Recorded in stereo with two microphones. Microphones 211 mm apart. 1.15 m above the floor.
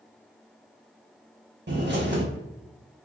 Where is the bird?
55° right (ahead or behind), 0.9 m.